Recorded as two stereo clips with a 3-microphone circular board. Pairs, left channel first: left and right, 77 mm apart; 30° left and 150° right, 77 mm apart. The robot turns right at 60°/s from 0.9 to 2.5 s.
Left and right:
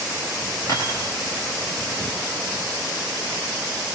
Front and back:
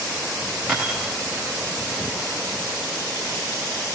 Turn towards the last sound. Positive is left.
turn(degrees=-130)